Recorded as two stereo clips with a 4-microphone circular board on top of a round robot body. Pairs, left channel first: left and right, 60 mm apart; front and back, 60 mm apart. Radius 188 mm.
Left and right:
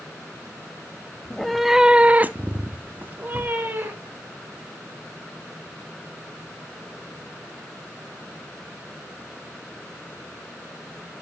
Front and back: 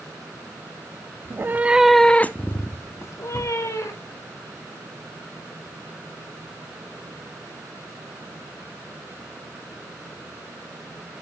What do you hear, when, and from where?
1.2 s a cat meowing: 170° left, 0.7 m; by 4.2 s 30° right, 1.7 m